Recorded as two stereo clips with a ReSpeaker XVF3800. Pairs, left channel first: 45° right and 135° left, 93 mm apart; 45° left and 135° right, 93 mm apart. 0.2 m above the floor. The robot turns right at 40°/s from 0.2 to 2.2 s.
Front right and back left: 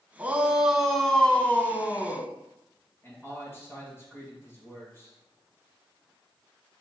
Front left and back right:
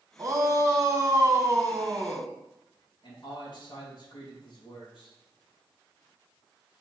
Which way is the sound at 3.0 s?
20° left.